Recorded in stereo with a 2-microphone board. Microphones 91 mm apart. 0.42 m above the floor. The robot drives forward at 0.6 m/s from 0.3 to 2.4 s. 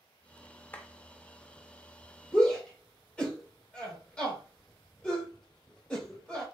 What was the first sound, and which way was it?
A clap, 20° left (ahead or behind).